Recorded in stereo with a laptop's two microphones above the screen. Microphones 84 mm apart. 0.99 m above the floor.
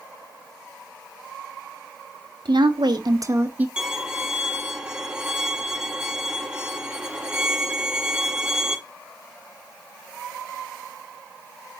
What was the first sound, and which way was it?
A woman speaking, 75° right (ahead or behind).